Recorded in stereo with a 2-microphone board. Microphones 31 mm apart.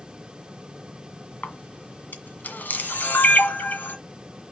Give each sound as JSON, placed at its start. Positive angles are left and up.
{"t": 1.4, "sound": "a camera shutter", "side_deg": 75, "distance_m": 1.7}